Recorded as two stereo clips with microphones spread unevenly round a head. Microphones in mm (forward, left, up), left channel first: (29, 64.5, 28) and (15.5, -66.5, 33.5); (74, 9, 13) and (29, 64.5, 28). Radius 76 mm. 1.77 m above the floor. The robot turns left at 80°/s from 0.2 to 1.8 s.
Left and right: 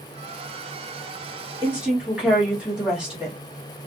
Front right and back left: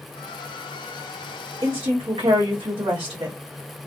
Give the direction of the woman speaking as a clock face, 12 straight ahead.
5 o'clock.